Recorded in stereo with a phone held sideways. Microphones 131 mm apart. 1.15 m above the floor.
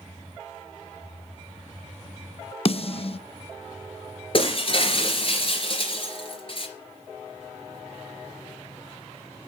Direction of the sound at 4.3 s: 40° left (ahead or behind).